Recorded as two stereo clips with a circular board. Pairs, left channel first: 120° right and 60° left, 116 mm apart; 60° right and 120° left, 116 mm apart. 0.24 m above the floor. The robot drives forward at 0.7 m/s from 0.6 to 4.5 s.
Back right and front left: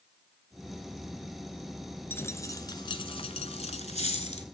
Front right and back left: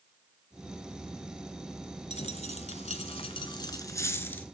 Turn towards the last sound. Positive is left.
turn(degrees=-135)